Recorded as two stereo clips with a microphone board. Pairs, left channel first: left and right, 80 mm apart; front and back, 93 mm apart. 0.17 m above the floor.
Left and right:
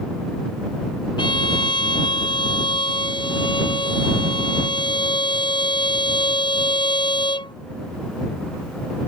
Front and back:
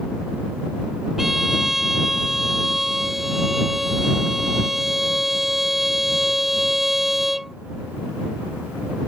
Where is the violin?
95° left.